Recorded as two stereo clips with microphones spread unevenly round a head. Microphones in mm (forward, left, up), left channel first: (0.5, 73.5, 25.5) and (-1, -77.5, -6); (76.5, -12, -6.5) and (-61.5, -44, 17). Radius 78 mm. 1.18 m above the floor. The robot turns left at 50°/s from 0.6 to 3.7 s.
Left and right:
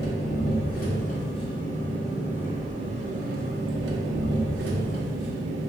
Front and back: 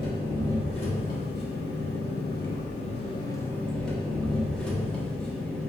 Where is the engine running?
80° left, 0.8 m; by 5.7 s 75° right, 0.8 m.